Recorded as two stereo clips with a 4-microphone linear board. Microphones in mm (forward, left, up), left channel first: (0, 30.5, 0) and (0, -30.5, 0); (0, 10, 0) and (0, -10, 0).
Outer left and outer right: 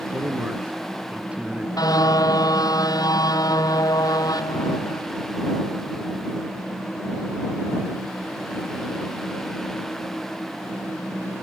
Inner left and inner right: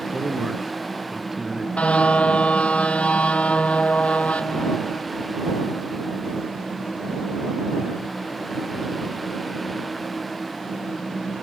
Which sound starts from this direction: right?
A man speaking, at 0.1 s.